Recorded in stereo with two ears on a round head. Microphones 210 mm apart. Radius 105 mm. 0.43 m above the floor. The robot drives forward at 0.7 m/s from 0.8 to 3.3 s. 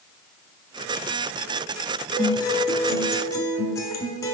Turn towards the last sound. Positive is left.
turn(degrees=15)  # may be behind; listen again after turning